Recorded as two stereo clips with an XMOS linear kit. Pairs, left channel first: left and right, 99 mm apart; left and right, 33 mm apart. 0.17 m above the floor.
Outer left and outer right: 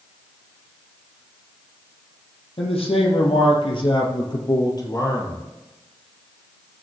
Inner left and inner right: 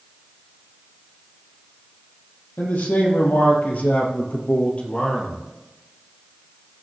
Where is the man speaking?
75° left (ahead or behind), 4 m; by 5.4 s 30° left (ahead or behind), 3.5 m.